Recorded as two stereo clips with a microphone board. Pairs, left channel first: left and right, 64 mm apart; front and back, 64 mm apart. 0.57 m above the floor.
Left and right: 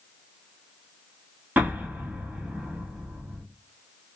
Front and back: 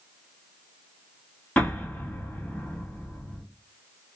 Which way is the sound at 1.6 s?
55° right.